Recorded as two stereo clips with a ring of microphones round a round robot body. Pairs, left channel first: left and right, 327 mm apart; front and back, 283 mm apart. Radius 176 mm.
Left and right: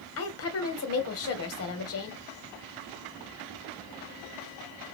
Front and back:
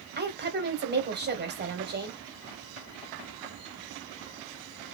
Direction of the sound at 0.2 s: 130° left.